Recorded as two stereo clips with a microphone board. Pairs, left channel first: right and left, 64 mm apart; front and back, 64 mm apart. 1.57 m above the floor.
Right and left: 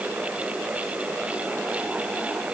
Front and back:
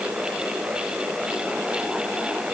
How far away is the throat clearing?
No throat clearing in this recording.